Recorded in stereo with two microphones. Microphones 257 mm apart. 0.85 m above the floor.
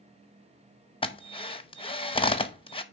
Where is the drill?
20° left (ahead or behind), 0.6 m.